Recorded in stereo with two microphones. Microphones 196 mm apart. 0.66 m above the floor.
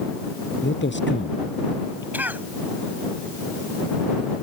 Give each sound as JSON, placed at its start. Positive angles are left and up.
{"t": 0.6, "sound": "a man speaking", "side_deg": 65}
{"t": 2.1, "sound": "a cough", "side_deg": -10}